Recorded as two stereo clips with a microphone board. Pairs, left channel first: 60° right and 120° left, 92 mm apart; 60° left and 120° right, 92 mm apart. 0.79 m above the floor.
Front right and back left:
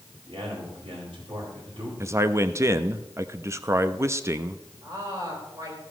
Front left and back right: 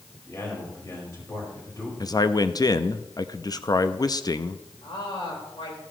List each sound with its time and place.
0.3 s a man speaking: 115° left, 4 m
2.0 s a man speaking: 75° left, 0.5 m
4.8 s a woman speaking: 75° left, 4 m